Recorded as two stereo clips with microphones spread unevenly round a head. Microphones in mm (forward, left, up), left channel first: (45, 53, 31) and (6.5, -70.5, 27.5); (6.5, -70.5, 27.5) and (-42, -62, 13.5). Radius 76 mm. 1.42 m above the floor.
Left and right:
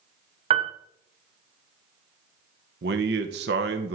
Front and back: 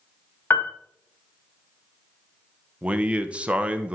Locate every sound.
0.5 s a piano: 60° right, 0.8 m
2.8 s a man speaking: 115° right, 0.9 m